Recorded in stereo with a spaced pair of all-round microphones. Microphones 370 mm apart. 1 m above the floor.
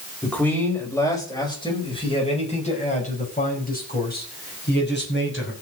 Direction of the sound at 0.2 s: 5° left (ahead or behind).